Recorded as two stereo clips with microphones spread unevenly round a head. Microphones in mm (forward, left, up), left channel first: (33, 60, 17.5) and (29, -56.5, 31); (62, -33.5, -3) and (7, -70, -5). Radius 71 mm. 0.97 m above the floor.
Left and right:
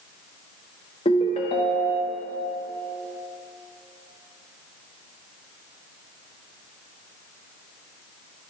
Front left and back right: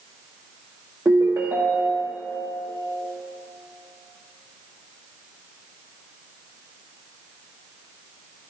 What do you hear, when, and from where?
1.1 s a ringtone: 140° left, 0.8 m